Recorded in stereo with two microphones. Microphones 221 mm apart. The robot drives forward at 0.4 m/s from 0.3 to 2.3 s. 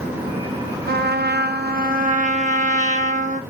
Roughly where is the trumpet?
Right.